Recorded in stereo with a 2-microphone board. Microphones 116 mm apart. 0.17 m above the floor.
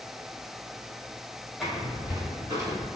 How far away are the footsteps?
About 1.7 m.